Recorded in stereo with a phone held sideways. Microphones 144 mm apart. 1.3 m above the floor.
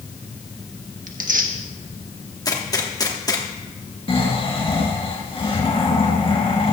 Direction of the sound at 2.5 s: 25° left (ahead or behind).